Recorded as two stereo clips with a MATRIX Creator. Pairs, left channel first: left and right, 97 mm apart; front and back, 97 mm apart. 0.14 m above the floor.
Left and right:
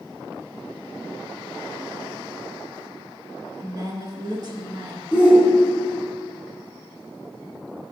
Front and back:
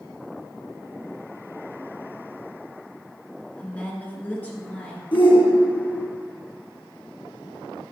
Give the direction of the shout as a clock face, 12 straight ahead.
12 o'clock.